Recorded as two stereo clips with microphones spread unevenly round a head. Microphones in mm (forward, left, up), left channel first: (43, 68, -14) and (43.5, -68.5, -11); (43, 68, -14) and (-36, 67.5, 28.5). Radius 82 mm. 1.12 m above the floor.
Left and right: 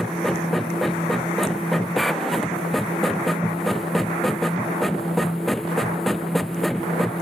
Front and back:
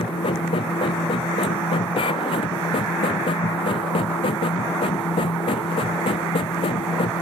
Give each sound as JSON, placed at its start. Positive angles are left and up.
{"t": 0.0, "sound": "a machine running", "azimuth_deg": 0}